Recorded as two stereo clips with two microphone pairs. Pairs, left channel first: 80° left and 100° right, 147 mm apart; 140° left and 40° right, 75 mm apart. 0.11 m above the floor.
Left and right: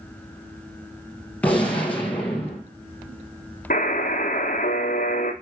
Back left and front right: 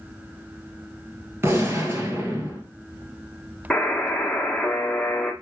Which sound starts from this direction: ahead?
A gunshot, at 1.4 s.